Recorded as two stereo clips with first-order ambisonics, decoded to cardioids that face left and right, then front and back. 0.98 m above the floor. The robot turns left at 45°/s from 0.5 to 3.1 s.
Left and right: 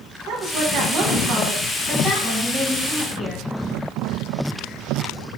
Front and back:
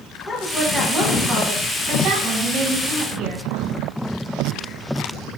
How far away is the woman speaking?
About 0.8 m.